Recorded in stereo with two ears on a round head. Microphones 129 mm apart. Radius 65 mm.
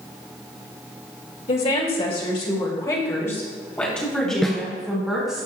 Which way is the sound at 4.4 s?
5° left (ahead or behind).